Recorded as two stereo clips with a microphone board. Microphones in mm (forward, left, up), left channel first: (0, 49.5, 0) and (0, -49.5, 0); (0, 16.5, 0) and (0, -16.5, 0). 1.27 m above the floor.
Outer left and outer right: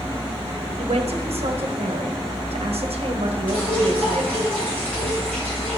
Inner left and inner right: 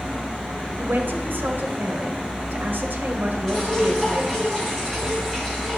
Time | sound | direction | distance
0.8 | a man speaking | 80° right | 1.0 m
3.5 | dripping | 15° left (ahead or behind) | 3.5 m